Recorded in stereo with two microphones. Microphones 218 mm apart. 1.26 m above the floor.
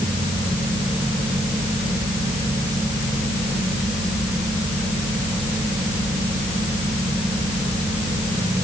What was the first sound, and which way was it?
Only background noise.